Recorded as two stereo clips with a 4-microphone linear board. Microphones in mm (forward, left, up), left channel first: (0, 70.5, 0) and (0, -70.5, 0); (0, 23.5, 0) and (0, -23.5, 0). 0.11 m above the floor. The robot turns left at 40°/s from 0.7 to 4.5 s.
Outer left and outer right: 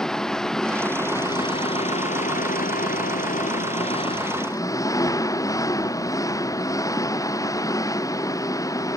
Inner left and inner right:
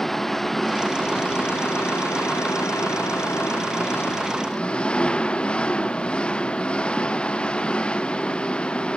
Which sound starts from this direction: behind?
An engine running, at 0.0 s.